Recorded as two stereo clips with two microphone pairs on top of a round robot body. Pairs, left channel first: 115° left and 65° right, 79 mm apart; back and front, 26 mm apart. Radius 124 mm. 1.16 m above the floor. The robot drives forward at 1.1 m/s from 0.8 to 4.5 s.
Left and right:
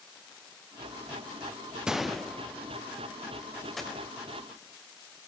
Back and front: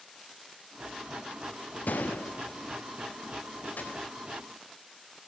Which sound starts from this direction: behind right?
A gunshot, at 1.9 s.